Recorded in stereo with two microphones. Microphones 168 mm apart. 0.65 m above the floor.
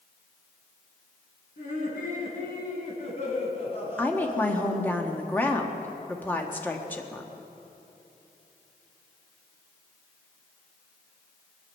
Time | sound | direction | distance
1.6 | laughter | 60° left (ahead or behind) | 5.5 m
4.0 | a woman speaking | 10° left (ahead or behind) | 1.3 m